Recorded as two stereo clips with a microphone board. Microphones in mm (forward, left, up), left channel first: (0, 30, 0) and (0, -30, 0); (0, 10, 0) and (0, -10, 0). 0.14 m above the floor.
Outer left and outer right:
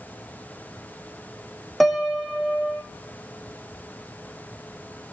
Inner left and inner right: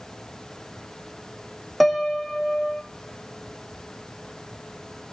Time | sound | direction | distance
1.8 | a piano | centre (ahead or behind) | 1.8 m